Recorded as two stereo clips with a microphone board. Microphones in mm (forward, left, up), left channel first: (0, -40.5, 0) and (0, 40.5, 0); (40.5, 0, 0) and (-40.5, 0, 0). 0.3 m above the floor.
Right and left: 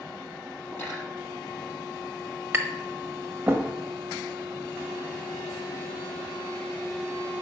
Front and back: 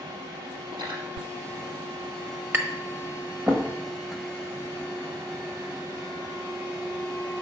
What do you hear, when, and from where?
0.7 s cutlery clinking: 155° right, 4.5 m
2.5 s tapping: 135° left, 1.0 m